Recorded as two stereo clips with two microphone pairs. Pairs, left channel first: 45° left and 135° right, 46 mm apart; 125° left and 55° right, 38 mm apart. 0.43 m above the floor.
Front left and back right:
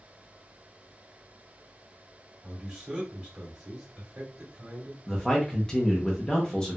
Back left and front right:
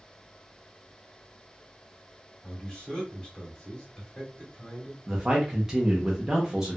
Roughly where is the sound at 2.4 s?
Behind.